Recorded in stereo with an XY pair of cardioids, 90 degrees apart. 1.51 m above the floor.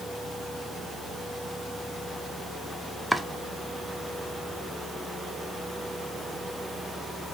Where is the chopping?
Straight ahead, 0.5 m.